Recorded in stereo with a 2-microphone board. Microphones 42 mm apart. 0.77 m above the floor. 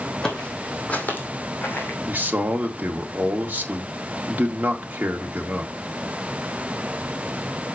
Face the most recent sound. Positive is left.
turn(degrees=-40)  # may be behind; listen again after turning